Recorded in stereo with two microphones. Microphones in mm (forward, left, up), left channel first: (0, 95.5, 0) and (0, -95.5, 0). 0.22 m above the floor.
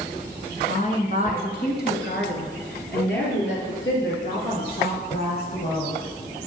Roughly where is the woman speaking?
Left.